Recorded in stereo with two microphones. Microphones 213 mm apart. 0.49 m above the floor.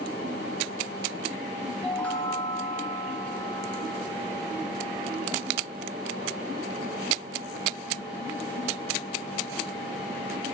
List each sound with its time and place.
1.8 s a chime: 5° left (ahead or behind), 1.0 m